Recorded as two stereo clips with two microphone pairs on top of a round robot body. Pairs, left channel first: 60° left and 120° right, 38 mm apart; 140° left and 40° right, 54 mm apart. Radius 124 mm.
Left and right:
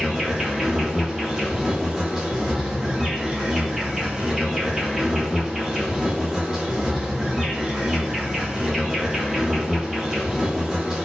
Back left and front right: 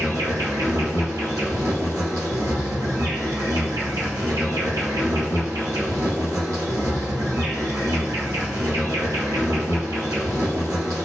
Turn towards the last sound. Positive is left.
turn(degrees=-45)